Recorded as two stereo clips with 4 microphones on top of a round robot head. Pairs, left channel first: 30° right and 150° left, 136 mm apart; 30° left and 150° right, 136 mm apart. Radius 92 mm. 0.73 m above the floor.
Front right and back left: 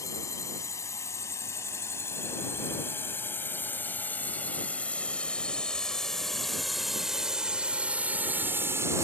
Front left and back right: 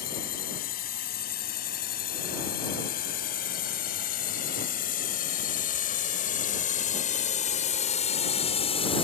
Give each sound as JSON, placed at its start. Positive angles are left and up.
{"t": 0.0, "sound": "a drone", "azimuth_deg": 35}